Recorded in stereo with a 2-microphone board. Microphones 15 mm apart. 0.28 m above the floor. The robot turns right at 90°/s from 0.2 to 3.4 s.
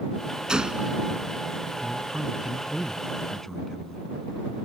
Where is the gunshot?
115° right; by 1.0 s 70° right.